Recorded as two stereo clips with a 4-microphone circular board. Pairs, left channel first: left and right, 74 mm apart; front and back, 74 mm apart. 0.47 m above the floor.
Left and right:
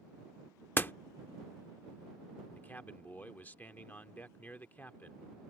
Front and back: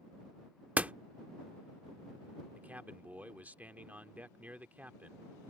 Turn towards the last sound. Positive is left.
turn(degrees=135)